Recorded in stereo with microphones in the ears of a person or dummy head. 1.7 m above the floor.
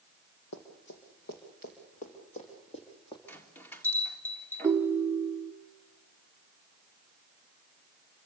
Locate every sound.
0.5 s running footsteps: 55° left (ahead or behind), 3 m; by 3.2 s 25° left (ahead or behind), 3 m
3.3 s a bell: 10° left (ahead or behind), 1.9 m
4.6 s a ringtone: 15° right (ahead or behind), 0.7 m